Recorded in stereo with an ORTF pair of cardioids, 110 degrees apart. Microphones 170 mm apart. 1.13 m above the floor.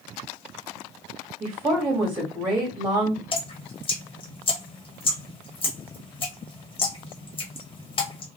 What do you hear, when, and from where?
1.4 s a woman speaking: 15° right, 1.3 m
3.3 s dripping: 30° left, 1.1 m